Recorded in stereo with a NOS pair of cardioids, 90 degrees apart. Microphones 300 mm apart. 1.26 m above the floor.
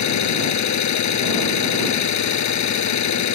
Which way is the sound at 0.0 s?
60° left.